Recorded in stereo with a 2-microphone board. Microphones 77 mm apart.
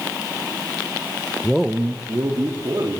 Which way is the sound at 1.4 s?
20° left (ahead or behind).